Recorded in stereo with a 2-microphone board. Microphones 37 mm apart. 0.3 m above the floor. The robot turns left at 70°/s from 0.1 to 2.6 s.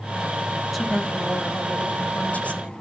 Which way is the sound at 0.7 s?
Straight behind.